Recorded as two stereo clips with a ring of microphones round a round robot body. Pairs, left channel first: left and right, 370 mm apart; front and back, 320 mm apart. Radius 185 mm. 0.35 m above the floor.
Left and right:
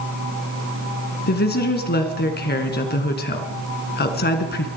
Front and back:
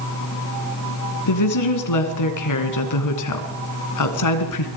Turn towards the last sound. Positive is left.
turn(degrees=25)